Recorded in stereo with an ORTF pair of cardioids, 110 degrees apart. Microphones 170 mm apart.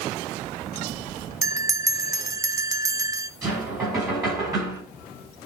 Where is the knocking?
20° right, 6.5 m.